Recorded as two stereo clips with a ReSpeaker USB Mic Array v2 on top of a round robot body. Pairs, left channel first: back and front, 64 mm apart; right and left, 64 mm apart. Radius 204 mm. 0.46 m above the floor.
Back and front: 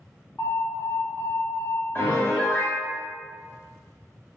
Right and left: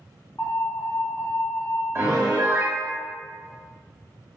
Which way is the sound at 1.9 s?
130° left.